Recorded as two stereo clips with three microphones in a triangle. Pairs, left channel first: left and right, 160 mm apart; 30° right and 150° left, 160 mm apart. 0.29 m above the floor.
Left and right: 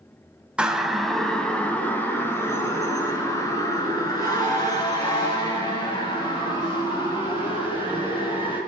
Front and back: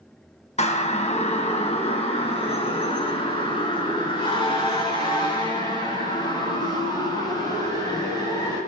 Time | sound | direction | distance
0.6 | a siren | 10° right | 2 m